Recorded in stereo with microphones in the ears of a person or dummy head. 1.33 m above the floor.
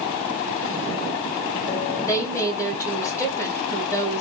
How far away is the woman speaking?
About 1.8 m.